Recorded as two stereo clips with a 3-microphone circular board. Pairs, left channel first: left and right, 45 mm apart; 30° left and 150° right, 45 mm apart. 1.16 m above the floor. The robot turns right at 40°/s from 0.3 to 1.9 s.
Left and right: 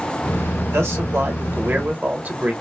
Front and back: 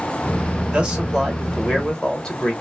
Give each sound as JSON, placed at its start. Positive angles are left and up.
{"t": 0.7, "sound": "a man speaking", "azimuth_deg": -90, "distance_m": 1.6}